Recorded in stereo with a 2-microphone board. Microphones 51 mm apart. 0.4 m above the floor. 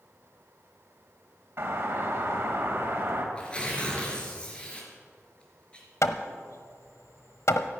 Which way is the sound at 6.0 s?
70° left (ahead or behind).